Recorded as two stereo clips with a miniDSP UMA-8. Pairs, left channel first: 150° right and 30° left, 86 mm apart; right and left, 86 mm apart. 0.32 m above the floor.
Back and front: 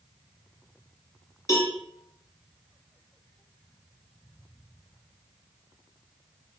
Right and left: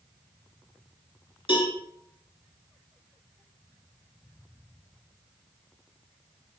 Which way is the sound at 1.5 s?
100° right.